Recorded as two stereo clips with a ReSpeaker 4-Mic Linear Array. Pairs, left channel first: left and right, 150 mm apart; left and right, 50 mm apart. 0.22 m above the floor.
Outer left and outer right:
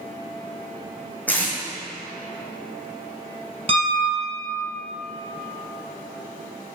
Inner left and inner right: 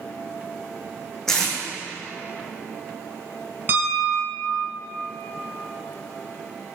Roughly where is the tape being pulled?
Centre.